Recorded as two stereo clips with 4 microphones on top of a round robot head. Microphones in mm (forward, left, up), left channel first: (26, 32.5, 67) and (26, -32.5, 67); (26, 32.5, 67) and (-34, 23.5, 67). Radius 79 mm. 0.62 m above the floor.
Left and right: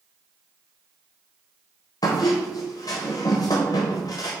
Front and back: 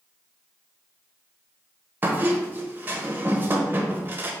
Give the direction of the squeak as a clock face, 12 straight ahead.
8 o'clock.